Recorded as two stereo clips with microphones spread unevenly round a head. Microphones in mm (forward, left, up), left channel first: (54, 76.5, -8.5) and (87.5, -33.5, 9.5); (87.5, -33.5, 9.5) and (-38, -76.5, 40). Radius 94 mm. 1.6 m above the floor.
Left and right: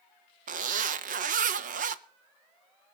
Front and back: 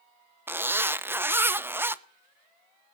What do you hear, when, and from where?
0.5 s a zipper: 85° right, 0.7 m